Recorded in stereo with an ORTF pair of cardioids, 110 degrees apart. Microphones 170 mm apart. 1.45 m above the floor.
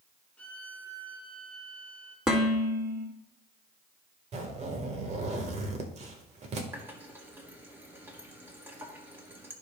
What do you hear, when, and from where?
0.4 s a violin: 5° left, 1.2 m
2.3 s dishes clattering: 5° right, 2.0 m
4.3 s a zipper: 40° right, 1.6 m
6.7 s a running tap: 15° right, 1.8 m